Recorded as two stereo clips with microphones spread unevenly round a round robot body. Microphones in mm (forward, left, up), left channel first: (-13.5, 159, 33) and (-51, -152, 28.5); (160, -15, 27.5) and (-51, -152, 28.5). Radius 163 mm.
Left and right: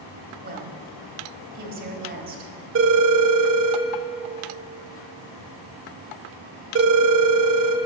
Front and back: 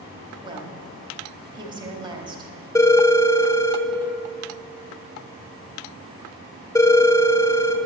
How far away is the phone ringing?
About 1.0 m.